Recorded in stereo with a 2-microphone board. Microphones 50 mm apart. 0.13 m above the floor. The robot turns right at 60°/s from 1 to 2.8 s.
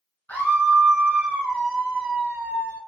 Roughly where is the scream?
Behind left.